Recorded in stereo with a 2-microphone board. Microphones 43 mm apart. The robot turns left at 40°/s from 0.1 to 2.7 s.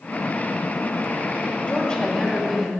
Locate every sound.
1.7 s a woman speaking: 40° left, 2.5 m; by 2.7 s straight ahead, 2.5 m